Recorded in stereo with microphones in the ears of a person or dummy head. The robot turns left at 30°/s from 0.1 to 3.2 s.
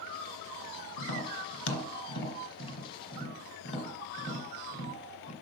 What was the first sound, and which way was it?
Tapping, 65° left (ahead or behind).